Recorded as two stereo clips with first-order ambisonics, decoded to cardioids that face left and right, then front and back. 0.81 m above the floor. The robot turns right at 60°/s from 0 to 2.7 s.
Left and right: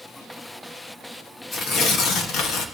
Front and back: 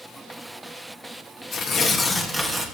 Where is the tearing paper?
35° left, 1.2 m; by 2.6 s 105° left, 1.2 m.